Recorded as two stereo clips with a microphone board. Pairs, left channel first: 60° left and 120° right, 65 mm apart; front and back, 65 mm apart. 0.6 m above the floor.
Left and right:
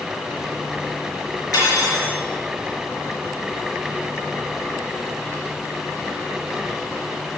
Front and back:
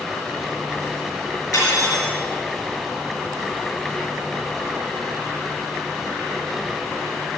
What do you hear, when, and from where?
1.5 s cutlery clinking: 30° left, 4.5 m